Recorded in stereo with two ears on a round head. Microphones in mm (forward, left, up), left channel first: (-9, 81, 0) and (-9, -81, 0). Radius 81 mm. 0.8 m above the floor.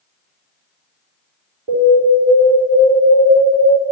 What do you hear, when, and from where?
1.7 s an alarm: 50° right (ahead or behind), 4 m